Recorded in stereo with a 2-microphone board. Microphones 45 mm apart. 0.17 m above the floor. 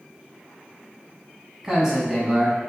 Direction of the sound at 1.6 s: 15° right (ahead or behind).